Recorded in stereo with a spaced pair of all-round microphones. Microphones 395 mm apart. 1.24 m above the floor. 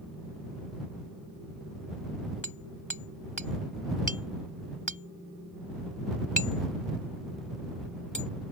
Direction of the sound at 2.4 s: 50° left (ahead or behind).